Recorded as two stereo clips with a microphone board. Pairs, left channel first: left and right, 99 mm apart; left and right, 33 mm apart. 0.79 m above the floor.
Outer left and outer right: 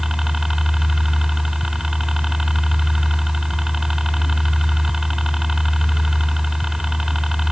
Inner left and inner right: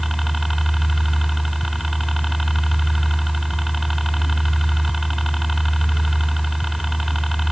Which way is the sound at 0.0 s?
5° right (ahead or behind).